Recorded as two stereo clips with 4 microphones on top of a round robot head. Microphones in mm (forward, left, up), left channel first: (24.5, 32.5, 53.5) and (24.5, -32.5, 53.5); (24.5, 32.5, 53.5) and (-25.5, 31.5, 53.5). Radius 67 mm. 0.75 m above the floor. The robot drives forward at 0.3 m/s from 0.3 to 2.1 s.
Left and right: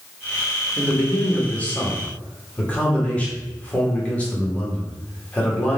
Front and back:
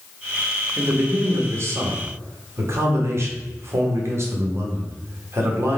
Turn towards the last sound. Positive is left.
turn(degrees=160)